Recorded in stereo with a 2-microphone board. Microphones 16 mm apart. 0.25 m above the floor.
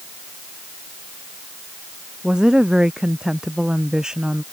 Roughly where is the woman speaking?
Right.